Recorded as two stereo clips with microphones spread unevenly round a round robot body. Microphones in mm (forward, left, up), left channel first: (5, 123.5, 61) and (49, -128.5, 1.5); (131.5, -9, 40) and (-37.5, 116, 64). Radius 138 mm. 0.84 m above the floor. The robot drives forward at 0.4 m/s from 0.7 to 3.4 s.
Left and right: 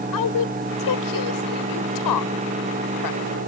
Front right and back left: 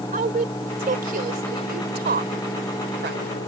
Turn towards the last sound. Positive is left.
turn(degrees=105)